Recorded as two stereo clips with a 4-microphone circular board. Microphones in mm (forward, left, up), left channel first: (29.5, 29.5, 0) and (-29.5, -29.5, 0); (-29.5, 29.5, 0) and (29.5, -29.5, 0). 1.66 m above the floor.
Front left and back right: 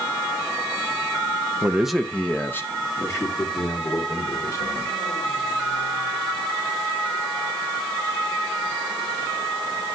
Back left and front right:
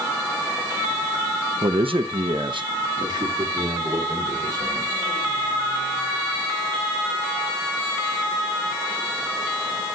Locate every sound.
1.6 s a man speaking: 65° right, 0.6 m; by 5.0 s straight ahead, 3.5 m